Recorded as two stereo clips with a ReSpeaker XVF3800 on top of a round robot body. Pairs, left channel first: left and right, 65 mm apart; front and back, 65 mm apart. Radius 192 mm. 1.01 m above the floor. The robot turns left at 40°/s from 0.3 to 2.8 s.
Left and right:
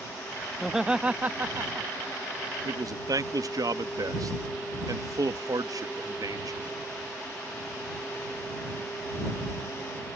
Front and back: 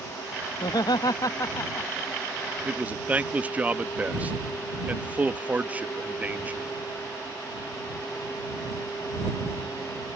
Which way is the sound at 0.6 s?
Straight ahead.